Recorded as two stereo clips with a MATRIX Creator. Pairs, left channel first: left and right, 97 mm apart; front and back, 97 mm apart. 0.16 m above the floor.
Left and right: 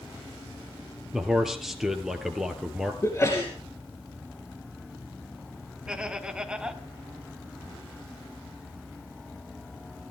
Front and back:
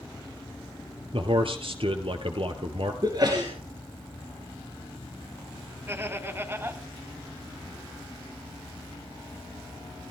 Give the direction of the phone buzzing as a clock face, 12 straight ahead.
I don't hear a phone buzzing.